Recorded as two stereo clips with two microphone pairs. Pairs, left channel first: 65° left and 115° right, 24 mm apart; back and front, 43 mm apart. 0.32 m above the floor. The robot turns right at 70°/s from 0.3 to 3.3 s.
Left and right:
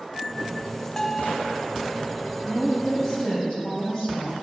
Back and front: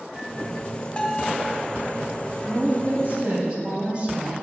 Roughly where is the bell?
Behind left.